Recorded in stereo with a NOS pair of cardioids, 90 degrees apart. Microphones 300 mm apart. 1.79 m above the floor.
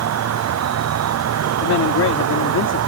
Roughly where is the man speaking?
Ahead left.